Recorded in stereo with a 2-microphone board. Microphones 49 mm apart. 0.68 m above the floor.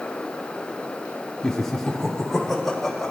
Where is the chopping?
No chopping in this recording.